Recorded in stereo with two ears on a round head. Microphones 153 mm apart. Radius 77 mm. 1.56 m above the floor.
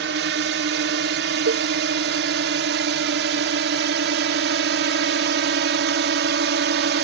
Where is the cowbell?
85° right.